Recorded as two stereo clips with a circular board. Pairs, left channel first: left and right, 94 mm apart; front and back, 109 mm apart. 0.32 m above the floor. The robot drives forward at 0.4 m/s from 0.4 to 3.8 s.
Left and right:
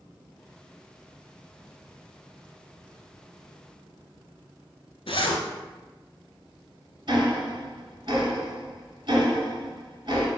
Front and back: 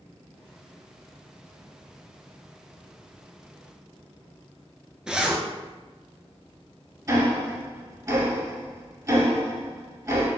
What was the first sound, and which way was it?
A zipper, 95° left.